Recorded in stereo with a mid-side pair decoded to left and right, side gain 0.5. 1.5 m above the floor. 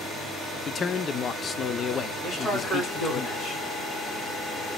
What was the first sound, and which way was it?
A man speaking, 45° left.